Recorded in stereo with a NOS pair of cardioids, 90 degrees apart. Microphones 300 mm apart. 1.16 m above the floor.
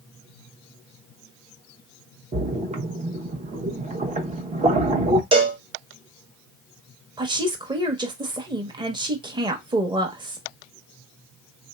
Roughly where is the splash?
Ahead.